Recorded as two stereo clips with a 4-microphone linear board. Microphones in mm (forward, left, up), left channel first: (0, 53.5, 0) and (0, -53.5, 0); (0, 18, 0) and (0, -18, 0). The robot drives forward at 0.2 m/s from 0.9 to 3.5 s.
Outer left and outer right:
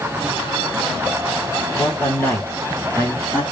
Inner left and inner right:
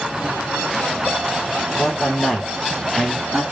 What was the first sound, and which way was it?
A man speaking, 20° left (ahead or behind).